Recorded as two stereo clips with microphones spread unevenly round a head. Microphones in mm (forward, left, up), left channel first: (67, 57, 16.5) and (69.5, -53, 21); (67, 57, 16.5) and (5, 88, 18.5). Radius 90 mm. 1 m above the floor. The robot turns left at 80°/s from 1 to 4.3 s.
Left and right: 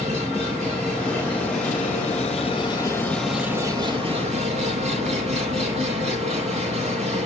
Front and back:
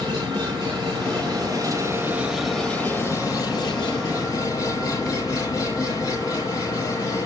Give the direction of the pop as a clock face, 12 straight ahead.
I don't hear a pop.